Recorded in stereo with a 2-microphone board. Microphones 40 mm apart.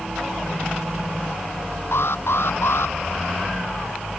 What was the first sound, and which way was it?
An alarm, 80° left.